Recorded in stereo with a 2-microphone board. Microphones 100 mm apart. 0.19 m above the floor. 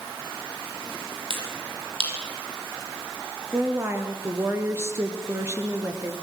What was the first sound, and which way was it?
A finger snap, 60° right (ahead or behind).